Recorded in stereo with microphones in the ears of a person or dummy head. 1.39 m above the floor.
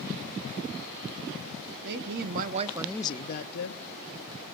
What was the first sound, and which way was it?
A woman speaking, 65° right (ahead or behind).